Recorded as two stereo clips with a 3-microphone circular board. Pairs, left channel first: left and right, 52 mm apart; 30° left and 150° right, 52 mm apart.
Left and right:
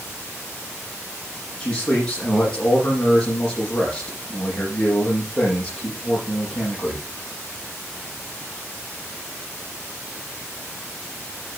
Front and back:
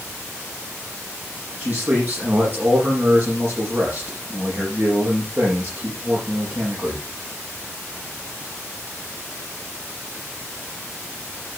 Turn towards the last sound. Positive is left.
turn(degrees=165)